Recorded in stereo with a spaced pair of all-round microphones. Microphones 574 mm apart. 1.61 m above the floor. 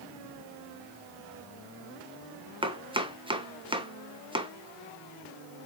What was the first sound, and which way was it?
Chopping, 10° right (ahead or behind).